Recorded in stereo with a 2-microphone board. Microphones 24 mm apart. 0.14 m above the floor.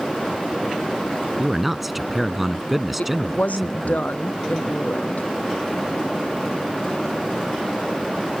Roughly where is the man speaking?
Centre.